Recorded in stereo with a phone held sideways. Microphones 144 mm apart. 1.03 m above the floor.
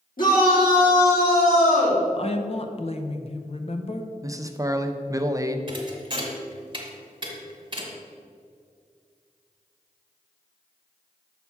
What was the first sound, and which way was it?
A shout, 75° left (ahead or behind).